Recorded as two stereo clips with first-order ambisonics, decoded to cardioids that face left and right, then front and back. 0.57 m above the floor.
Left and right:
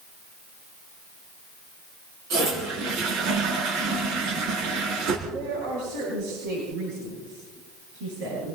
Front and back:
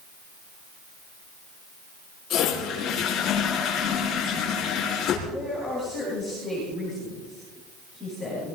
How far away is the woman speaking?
About 10 m.